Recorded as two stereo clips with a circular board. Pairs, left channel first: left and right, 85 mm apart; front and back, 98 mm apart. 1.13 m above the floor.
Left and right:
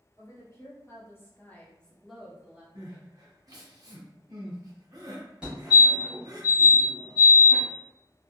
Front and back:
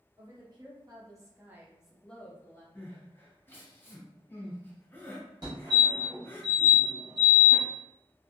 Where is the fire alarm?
160° right, 1.3 m.